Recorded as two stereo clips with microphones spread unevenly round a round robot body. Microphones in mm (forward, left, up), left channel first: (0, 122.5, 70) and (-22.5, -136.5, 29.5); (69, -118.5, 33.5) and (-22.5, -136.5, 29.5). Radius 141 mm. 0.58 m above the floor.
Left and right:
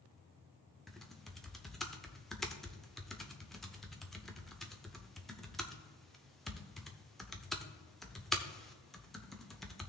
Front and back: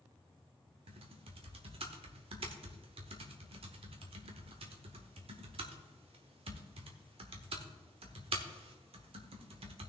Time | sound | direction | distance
0.9 | typing on a keyboard | 175° left | 0.8 m